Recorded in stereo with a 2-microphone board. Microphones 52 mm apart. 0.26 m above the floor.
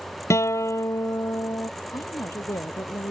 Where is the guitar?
70° left (ahead or behind).